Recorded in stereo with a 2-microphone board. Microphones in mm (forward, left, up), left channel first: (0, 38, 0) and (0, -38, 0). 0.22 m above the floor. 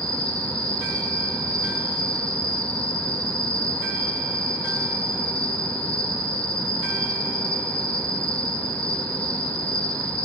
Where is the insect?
55° right (ahead or behind), 2 m.